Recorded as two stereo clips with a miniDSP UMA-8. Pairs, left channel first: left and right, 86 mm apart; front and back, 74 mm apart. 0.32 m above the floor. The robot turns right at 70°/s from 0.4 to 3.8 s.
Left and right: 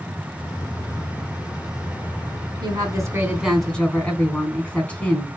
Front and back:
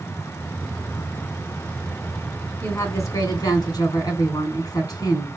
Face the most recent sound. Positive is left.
turn(degrees=15)